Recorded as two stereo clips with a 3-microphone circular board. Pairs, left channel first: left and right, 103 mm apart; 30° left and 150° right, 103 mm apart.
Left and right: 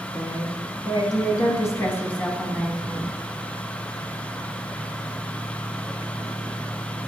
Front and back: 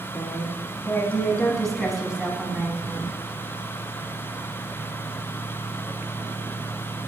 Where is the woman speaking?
85° left, 1.5 m; by 3.1 s 165° right, 1.1 m.